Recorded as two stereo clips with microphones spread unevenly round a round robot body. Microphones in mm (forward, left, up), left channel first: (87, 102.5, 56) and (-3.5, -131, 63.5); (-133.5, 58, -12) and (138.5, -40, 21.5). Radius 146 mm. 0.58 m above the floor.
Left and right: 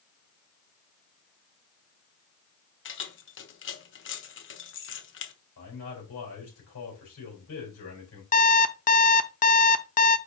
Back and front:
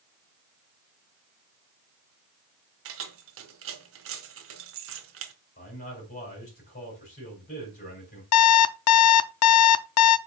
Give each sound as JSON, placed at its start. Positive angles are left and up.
{"t": 2.9, "sound": "keys jangling", "azimuth_deg": 30, "distance_m": 1.0}
{"t": 5.6, "sound": "a man speaking", "azimuth_deg": 105, "distance_m": 4.0}
{"t": 8.3, "sound": "an alarm clock", "azimuth_deg": 125, "distance_m": 0.5}